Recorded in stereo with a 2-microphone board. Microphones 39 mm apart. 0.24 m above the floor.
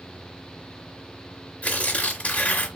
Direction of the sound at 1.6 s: 45° left (ahead or behind).